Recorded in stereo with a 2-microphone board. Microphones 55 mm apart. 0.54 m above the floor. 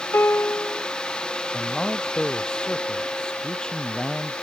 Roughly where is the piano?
Left.